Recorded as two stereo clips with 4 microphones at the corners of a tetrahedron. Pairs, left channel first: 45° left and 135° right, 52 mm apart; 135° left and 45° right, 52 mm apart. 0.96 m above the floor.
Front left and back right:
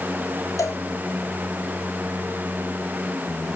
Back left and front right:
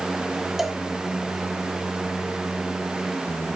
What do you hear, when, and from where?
0.6 s a cowbell: 40° left, 1.5 m